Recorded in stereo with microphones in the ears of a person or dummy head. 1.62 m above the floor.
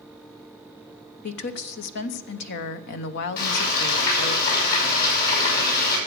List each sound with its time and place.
1.2 s a woman speaking: 60° left (ahead or behind), 1.0 m
3.4 s frying: 55° left (ahead or behind), 5.5 m